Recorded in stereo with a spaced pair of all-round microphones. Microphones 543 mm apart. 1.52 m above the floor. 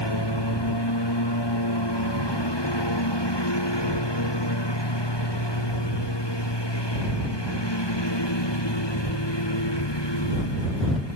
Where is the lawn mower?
45° left (ahead or behind); by 11.2 s 50° left (ahead or behind).